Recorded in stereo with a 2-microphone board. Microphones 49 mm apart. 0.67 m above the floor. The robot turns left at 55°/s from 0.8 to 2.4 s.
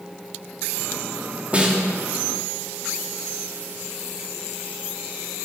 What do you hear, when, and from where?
1.5 s a snare drum: 30° right (ahead or behind), 1.6 m; by 1.9 s 15° right (ahead or behind), 1.6 m